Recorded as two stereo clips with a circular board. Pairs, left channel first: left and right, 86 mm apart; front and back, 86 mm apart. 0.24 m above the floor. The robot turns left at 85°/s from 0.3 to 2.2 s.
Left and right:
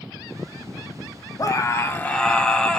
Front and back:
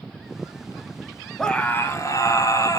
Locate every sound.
1.4 s a scream: 85° left, 1.2 m; by 2.8 s 15° left, 1.2 m